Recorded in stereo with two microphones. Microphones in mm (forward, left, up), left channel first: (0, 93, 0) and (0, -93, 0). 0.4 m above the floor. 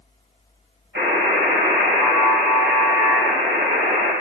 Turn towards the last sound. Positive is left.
turn(degrees=-70)  # may be behind; listen again after turning